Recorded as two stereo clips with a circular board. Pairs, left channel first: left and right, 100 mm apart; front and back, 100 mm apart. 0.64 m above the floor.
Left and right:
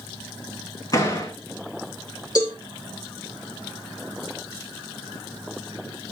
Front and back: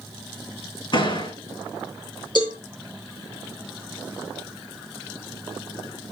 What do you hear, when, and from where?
0.9 s a door slam: 40° left, 6 m
2.4 s a cowbell: 40° left, 6 m